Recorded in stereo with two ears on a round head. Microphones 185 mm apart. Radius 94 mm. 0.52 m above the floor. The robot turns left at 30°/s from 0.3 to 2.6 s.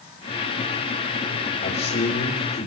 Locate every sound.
1.6 s a man speaking: 50° left (ahead or behind), 1.9 m; by 2.7 s 55° left (ahead or behind), 1.9 m